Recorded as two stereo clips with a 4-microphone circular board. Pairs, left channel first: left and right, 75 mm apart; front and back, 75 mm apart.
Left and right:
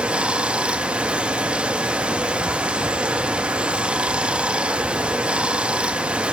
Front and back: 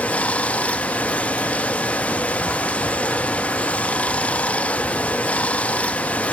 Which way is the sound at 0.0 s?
35° right.